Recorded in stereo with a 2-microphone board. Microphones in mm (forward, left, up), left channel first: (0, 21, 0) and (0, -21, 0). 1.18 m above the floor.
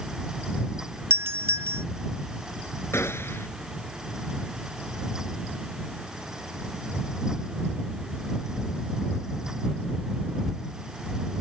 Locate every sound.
1.1 s a doorbell: 85° right
2.9 s a gunshot: 75° left (ahead or behind)